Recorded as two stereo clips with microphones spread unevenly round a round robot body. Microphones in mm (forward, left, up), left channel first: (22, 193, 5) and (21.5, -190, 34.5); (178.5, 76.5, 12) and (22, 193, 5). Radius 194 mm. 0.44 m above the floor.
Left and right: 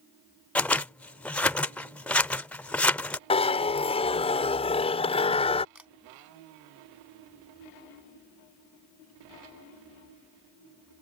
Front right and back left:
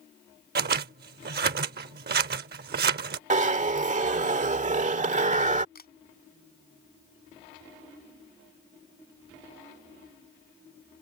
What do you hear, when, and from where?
0.6 s scissors: 175° left
3.3 s a zipper: 150° left
5.8 s a camera shutter: 5° right